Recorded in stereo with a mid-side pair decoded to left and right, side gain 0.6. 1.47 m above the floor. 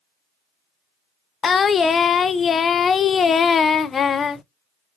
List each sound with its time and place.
1.4 s singing: 35° left, 0.5 m